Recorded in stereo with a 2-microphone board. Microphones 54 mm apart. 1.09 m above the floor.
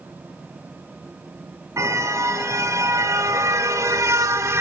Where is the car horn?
70° right (ahead or behind), 4 m; by 4.6 s 60° right (ahead or behind), 1.1 m.